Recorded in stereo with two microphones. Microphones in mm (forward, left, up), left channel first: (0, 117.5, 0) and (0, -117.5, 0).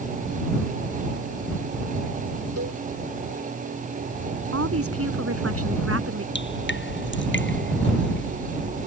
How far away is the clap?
I don't hear a clap.